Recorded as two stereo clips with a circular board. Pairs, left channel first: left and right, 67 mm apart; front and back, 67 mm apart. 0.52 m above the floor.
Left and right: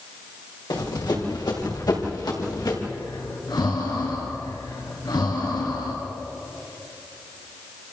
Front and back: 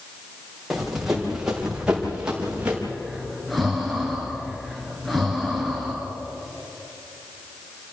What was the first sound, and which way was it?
Running footsteps, 95° left.